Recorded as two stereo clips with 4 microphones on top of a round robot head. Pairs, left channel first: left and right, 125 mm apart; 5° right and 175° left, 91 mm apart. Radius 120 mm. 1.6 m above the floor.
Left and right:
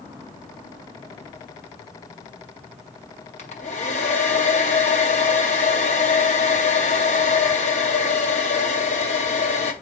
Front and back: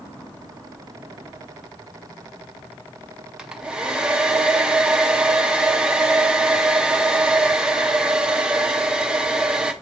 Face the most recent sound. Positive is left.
turn(degrees=95)